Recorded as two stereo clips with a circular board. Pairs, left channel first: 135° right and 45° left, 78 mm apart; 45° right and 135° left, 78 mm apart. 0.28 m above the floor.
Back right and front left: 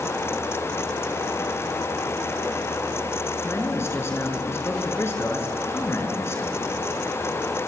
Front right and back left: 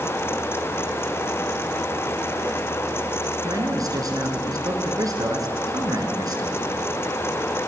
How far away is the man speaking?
About 4 m.